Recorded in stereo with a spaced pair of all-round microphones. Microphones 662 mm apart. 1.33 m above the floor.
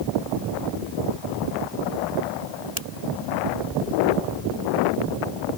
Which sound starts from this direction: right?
A finger snap, at 2.8 s.